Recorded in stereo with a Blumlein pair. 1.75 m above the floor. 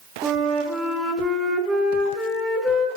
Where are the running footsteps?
No running footsteps in this recording.